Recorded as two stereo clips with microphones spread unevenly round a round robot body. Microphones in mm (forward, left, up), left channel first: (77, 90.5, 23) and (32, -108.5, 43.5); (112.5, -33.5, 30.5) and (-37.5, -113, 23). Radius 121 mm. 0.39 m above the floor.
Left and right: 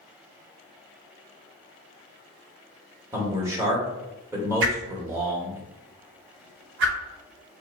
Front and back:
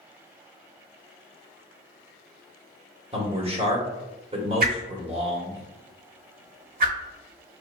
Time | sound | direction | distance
3.1 | a man speaking | straight behind | 1.1 m
4.6 | a whoosh | 135° right | 0.8 m